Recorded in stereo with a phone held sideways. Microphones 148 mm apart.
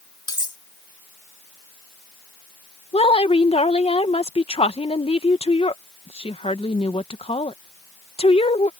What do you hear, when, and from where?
0.3 s cutlery clinking: 30° left (ahead or behind)
2.9 s a woman speaking: 40° left (ahead or behind)